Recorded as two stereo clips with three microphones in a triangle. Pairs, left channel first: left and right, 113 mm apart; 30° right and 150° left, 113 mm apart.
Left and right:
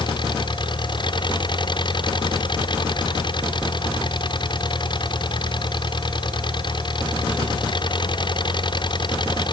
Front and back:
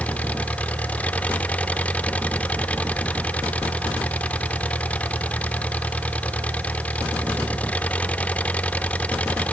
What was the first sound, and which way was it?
An engine running, 45° left.